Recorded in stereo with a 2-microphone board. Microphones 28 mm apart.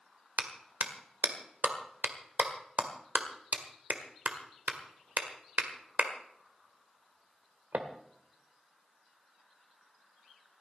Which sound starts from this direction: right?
A clap, at 0.4 s.